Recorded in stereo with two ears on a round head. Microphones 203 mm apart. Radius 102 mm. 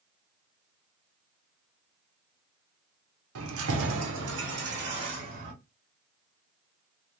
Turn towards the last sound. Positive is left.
turn(degrees=-40)  # may be behind; listen again after turning